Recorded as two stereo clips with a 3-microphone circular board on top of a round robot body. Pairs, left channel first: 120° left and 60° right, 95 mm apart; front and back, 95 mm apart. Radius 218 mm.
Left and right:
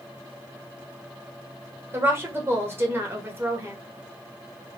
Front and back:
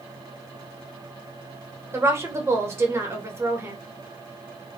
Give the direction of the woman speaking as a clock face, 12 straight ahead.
4 o'clock.